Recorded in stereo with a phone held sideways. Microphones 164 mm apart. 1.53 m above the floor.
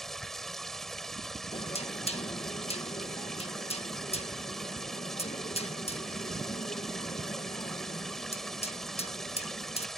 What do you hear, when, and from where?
0.0 s running water: centre (ahead or behind)
1.5 s knocking: 40° left (ahead or behind)